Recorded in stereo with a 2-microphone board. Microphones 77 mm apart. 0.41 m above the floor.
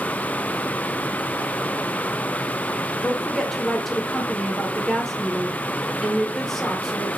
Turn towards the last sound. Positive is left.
turn(degrees=5)  # may be behind; listen again after turning